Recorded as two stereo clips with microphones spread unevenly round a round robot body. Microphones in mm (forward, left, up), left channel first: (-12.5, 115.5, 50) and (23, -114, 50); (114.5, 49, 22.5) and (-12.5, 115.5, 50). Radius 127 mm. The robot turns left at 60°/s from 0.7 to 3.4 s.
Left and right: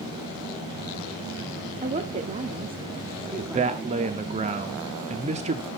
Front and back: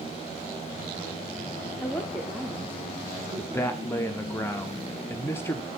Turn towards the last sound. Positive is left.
turn(degrees=-60)